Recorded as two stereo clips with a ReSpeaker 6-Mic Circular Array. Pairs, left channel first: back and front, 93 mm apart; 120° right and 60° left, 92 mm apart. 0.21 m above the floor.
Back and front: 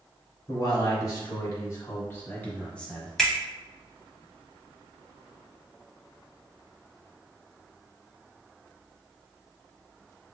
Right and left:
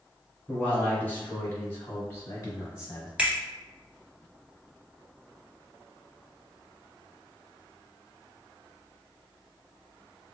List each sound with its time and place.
0.5 s a man speaking: 170° left, 1.8 m; by 3.1 s 100° right, 1.3 m
3.2 s a finger snap: 105° left, 0.9 m